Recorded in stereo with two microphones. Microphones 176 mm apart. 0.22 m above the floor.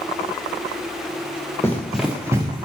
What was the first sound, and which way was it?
Running footsteps, 15° left (ahead or behind).